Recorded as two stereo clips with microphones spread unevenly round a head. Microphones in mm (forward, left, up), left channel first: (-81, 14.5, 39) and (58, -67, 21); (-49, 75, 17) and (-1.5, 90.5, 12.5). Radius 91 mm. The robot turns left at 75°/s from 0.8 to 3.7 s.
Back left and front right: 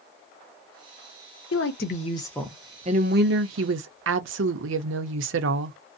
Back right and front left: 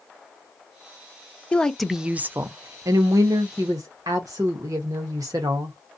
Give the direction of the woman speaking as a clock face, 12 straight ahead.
8 o'clock.